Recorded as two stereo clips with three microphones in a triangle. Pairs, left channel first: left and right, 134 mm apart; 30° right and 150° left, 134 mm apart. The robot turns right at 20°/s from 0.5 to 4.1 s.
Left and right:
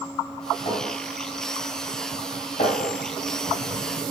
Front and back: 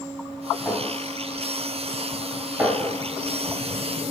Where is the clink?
35° left, 2.5 m; by 2.9 s 80° left, 2.5 m.